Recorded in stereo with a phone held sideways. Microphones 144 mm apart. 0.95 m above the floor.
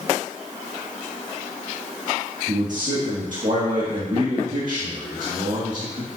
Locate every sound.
2.5 s a man speaking: 65° right (ahead or behind), 1.9 m